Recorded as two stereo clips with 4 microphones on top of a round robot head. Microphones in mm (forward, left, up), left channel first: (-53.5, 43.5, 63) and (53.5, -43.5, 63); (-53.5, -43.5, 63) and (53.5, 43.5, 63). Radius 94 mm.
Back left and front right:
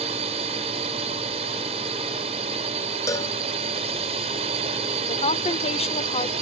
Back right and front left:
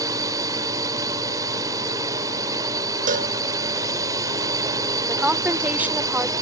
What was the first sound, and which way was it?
A drone, 20° right.